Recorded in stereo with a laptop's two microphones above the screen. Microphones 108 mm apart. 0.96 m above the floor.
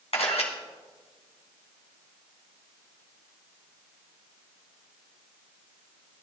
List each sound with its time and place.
0.1 s a camera shutter: 75° left (ahead or behind), 2 m